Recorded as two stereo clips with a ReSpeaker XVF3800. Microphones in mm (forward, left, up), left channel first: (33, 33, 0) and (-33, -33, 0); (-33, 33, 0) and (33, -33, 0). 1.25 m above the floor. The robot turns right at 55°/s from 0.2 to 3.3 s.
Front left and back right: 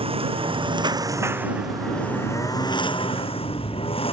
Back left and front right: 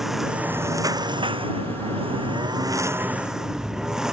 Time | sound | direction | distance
0.0 | a lawn mower | 130° right | ?